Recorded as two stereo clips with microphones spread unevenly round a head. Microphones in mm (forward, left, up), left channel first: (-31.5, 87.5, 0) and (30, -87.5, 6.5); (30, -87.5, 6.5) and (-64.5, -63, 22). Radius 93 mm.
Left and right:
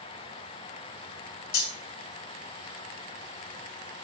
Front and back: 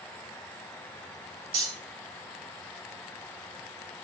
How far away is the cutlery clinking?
About 2.5 m.